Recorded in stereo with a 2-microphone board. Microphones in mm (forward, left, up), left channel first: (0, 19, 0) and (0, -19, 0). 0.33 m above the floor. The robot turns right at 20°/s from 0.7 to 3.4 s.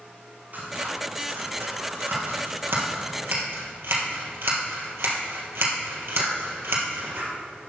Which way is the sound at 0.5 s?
45° right (ahead or behind).